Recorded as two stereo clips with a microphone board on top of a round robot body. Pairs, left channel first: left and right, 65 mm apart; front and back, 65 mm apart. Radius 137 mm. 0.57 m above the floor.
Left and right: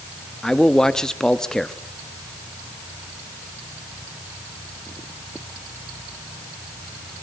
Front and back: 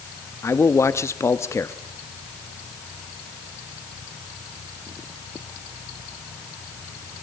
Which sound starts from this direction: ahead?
A man speaking, at 0.4 s.